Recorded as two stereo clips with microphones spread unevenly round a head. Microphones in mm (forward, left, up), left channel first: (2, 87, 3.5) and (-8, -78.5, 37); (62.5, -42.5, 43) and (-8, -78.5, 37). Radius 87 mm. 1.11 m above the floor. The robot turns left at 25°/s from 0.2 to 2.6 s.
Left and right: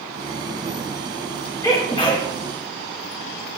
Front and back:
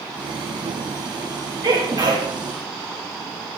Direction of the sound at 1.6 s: 160° left.